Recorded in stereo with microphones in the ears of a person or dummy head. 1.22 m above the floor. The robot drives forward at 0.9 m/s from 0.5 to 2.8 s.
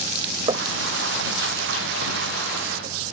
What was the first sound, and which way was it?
Knocking, 25° right (ahead or behind).